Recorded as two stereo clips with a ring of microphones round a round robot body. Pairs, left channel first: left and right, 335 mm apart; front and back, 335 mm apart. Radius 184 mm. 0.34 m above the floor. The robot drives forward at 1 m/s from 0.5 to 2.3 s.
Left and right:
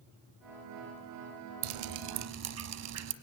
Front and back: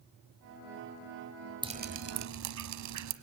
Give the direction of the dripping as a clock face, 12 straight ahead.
3 o'clock.